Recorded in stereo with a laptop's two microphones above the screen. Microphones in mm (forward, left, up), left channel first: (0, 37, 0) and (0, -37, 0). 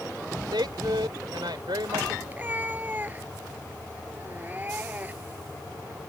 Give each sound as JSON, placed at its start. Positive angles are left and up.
{"t": 0.5, "sound": "a woman speaking", "side_deg": -80}
{"t": 2.3, "sound": "a cat meowing", "side_deg": -25}